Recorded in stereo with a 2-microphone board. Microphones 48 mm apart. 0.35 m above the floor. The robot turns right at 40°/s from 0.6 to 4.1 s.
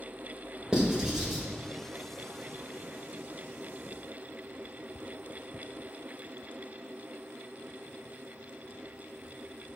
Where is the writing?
15° right (ahead or behind), 1.4 m; by 1.4 s 5° right (ahead or behind), 1.4 m.